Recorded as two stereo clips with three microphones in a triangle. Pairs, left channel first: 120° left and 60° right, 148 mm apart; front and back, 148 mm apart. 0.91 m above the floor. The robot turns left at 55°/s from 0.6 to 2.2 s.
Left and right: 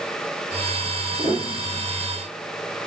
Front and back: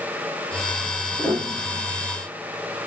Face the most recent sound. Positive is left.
turn(degrees=-130)